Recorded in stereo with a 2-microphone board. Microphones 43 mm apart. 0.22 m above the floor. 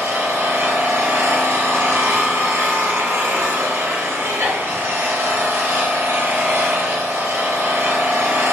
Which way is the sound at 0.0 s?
75° right (ahead or behind).